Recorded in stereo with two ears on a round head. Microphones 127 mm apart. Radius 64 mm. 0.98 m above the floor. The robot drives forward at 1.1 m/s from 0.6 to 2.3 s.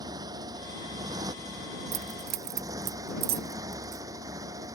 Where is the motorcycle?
30° right (ahead or behind); by 4.8 s 25° right (ahead or behind).